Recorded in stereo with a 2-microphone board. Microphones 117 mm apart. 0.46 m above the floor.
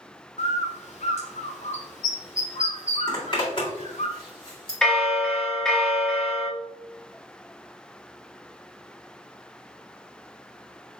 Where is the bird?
70° left (ahead or behind), 1.0 m.